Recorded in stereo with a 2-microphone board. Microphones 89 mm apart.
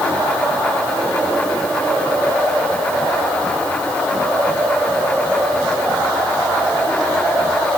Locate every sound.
Only background noise.